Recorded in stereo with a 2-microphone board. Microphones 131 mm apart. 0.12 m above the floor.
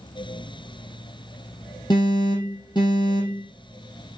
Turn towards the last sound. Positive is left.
turn(degrees=35)  # may be behind; listen again after turning